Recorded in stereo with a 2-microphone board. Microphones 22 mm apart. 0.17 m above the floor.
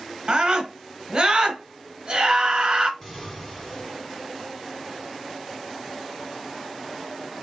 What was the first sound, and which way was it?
A scream, 45° right (ahead or behind).